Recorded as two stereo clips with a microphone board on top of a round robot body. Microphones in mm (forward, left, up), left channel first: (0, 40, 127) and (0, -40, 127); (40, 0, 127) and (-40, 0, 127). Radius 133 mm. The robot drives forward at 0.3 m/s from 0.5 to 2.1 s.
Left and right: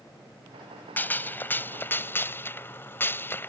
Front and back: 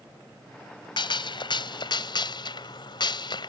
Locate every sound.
1.0 s a gunshot: 20° left; by 3.5 s 25° left